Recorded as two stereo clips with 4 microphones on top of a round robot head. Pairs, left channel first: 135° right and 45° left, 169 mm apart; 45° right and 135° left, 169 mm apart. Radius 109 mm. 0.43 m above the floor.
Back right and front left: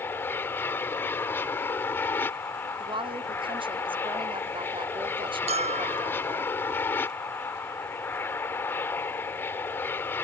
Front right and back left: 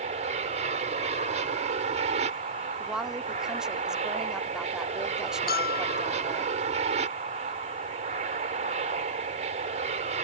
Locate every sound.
0.0 s an aircraft: 150° left
2.8 s a woman speaking: 55° left
5.5 s a bell: 10° right